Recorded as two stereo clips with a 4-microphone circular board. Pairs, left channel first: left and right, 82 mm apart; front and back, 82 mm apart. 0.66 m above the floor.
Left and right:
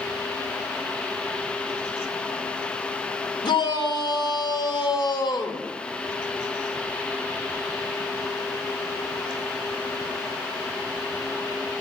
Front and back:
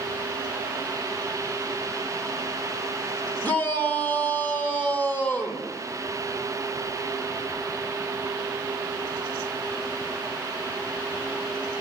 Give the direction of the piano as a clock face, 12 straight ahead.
No piano in this recording.